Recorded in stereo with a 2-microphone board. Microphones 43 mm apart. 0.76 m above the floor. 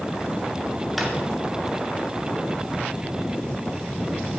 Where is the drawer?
5° right (ahead or behind), 2.5 m.